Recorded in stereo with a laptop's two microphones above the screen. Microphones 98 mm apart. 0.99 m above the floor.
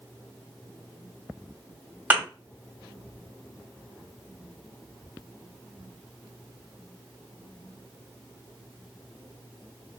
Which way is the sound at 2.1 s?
15° right (ahead or behind).